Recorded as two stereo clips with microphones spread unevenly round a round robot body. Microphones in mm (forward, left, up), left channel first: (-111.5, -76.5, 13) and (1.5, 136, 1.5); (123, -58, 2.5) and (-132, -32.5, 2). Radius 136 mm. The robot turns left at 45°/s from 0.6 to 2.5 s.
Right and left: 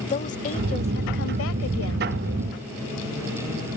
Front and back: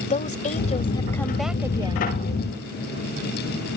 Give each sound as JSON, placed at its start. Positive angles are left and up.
{"t": 0.1, "sound": "a woman speaking", "azimuth_deg": -60}